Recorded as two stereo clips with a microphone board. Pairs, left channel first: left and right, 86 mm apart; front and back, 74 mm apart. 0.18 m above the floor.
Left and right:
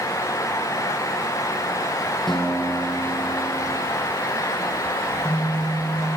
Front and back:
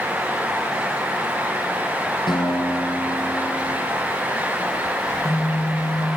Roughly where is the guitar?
Ahead.